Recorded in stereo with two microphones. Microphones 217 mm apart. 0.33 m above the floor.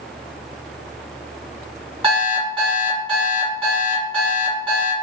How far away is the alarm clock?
About 1.5 m.